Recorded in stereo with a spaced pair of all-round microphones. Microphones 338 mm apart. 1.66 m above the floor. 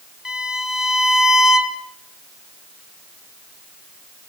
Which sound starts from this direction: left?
A violin, at 0.2 s.